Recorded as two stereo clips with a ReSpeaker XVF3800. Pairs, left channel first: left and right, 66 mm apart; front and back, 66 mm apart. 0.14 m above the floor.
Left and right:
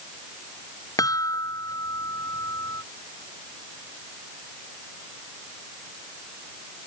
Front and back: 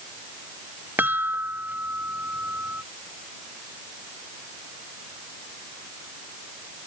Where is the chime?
120° left.